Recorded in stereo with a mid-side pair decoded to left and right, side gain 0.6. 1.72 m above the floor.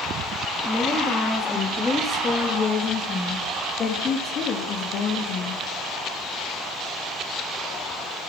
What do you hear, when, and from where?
0.7 s a woman speaking: 15° left, 4.5 m; by 5.6 s 65° left, 3.5 m